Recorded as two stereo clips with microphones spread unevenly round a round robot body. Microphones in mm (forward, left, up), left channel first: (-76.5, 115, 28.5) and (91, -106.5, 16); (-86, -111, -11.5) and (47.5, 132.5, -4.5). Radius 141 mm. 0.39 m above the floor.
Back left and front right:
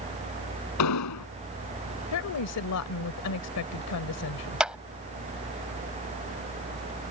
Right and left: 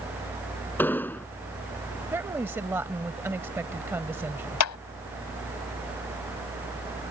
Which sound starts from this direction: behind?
An explosion, at 0.8 s.